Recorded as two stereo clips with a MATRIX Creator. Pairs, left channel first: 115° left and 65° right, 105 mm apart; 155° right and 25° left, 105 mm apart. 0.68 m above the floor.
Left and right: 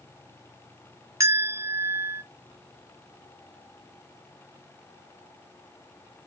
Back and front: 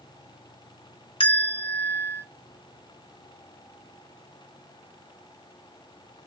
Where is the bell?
125° right, 1.5 m.